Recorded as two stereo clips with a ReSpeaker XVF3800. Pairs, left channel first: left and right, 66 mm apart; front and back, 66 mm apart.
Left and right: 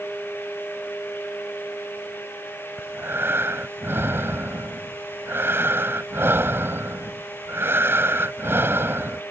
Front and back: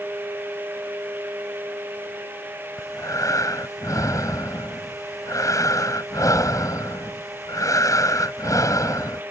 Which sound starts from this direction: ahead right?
Breathing, at 2.8 s.